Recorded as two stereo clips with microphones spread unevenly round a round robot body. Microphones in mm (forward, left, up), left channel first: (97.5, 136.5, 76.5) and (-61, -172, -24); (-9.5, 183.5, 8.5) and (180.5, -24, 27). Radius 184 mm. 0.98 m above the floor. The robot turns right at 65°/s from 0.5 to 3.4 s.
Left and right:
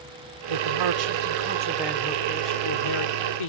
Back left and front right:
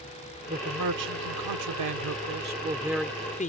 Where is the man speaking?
120° right; by 3.5 s 70° left.